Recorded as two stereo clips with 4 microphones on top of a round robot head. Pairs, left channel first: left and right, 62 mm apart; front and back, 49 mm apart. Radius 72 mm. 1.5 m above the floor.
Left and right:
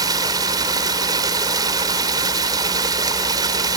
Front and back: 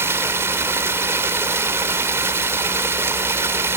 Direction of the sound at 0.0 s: 125° right.